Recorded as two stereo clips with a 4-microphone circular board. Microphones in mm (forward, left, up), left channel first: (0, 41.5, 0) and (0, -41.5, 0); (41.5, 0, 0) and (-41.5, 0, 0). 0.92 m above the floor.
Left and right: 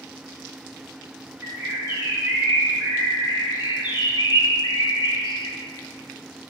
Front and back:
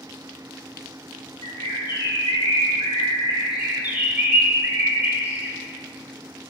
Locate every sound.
1.4 s a bird: 25° right, 3 m
3.5 s a bird: 110° left, 1.6 m